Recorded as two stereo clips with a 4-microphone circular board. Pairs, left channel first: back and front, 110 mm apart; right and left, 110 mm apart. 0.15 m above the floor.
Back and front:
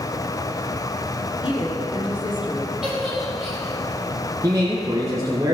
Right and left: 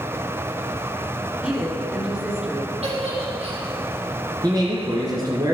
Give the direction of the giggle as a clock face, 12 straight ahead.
9 o'clock.